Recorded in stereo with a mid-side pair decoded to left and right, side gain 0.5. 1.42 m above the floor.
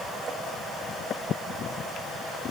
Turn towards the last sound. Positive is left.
No sound to turn to.